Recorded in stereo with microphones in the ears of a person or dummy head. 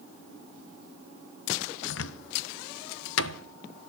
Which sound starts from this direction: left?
A cupboard door, at 1.9 s.